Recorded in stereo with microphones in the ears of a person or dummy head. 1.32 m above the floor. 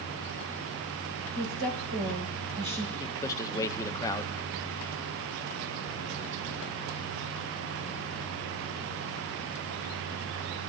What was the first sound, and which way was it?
A woman speaking, 55° right (ahead or behind).